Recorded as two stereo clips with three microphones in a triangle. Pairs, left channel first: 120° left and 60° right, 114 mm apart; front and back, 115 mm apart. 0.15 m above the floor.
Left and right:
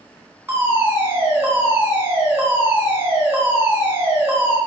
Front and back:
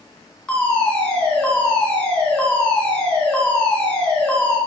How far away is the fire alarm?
About 2.5 m.